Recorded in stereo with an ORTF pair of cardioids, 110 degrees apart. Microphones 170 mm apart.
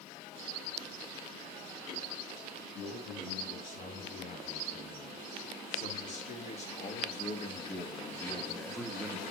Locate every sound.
2.7 s a man speaking: 55° left, 6.5 m; by 9.2 s 20° right, 1.2 m